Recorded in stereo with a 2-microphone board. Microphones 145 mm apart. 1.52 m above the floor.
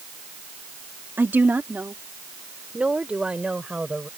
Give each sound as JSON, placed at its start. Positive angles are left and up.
{"t": 1.2, "sound": "a woman speaking", "side_deg": -15}